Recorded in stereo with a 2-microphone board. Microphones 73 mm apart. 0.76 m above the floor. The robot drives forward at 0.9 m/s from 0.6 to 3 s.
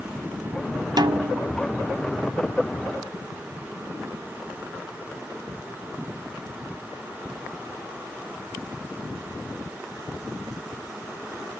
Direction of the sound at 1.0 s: 60° right (ahead or behind).